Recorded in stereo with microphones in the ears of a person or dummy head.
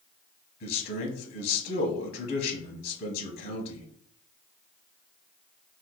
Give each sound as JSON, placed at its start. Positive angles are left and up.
{"t": 0.6, "sound": "a man speaking", "side_deg": 55, "distance_m": 0.9}